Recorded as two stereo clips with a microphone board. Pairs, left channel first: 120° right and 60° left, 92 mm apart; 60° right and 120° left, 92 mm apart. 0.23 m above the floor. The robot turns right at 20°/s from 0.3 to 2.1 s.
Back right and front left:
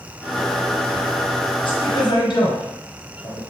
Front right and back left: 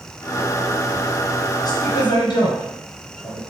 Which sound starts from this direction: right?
A woman speaking, at 1.6 s.